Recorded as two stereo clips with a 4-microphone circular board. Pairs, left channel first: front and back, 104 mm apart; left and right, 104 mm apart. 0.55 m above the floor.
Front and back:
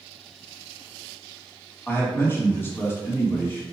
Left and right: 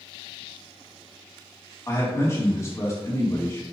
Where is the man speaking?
50° left, 1.2 m.